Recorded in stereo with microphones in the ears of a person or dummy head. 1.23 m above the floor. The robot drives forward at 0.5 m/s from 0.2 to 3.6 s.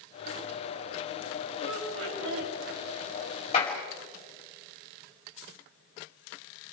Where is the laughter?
90° right, 6.5 m; by 2.5 s 85° right, 6.5 m.